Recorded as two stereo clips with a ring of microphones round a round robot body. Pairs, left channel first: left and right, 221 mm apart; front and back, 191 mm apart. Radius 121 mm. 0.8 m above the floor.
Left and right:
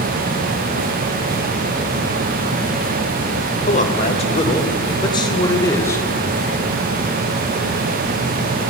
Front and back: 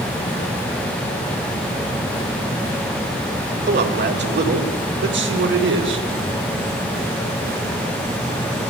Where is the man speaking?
150° left, 3.5 m; by 6.1 s 170° left, 3 m.